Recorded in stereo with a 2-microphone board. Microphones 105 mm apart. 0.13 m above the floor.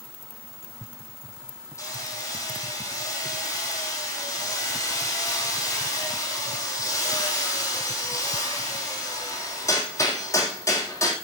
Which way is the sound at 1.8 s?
30° left (ahead or behind).